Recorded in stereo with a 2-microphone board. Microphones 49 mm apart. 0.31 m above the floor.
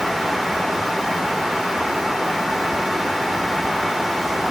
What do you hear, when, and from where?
Only background noise.